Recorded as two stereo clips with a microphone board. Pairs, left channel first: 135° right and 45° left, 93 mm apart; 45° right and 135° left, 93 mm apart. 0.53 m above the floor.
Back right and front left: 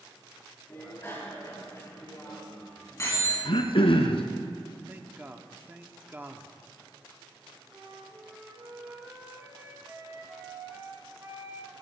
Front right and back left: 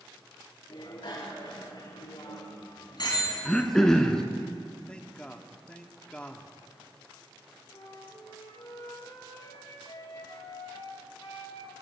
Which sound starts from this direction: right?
A bicycle bell, at 0.7 s.